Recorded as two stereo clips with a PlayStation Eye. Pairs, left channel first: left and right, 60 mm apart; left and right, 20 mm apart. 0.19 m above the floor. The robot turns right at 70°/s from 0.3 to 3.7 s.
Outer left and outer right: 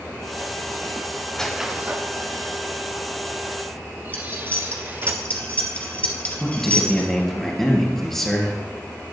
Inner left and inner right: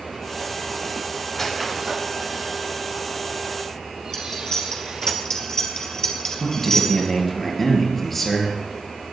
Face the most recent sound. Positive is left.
turn(degrees=5)  # may be behind; listen again after turning